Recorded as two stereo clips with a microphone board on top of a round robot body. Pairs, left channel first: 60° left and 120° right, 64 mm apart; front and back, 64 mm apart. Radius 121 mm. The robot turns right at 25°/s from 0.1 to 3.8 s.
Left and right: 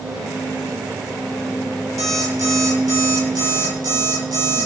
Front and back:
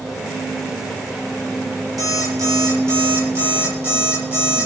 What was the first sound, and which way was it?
An alarm clock, 155° right.